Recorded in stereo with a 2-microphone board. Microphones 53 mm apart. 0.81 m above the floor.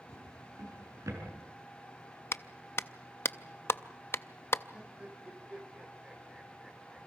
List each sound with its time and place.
0.1 s a drawer: 85° right, 6 m
2.3 s a clap: 50° left (ahead or behind), 0.5 m
4.7 s laughter: 15° right (ahead or behind), 4 m